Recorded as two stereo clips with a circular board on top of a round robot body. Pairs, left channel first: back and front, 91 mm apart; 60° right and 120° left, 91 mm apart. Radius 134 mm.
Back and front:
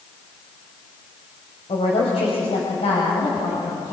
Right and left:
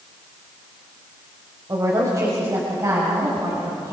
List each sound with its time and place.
1.7 s a woman speaking: 175° left, 3.5 m